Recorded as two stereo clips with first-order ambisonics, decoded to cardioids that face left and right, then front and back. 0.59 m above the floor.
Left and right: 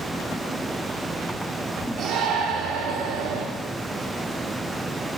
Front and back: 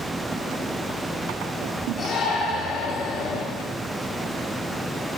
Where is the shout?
60° right, 0.9 m.